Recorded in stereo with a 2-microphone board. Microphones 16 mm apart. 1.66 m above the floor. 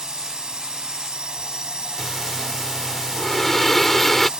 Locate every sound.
0.0 s a drone: 90° right
2.0 s breathing: 15° left (ahead or behind)